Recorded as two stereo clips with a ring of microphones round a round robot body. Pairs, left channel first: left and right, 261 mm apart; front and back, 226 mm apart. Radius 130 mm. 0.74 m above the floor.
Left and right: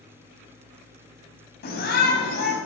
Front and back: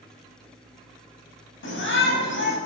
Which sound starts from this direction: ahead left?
A shout, at 1.6 s.